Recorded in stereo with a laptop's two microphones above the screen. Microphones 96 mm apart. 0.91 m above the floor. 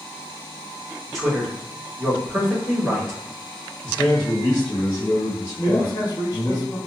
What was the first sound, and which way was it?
A man speaking, centre (ahead or behind).